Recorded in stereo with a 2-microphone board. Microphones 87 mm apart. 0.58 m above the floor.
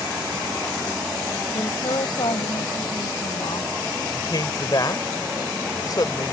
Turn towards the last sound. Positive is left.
turn(degrees=50)  # may be behind; listen again after turning